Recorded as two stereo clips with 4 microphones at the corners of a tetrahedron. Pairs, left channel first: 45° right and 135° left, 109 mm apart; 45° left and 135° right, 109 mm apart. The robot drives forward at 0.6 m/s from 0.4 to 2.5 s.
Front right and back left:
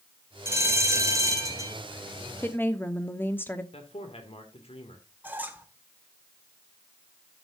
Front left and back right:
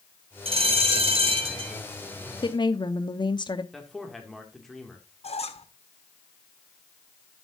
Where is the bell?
155° right, 1.8 m; by 1.8 s 165° right, 2.5 m.